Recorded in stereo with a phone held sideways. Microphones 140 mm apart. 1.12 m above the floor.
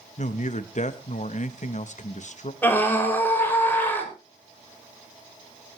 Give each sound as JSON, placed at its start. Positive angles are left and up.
{"t": 0.2, "sound": "a man speaking", "side_deg": 60, "distance_m": 1.0}
{"t": 2.6, "sound": "a scream", "side_deg": 15, "distance_m": 6.0}